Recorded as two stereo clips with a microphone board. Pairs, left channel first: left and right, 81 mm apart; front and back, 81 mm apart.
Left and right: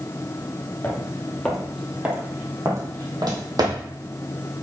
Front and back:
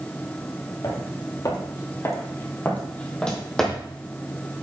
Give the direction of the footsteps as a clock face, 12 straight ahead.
11 o'clock.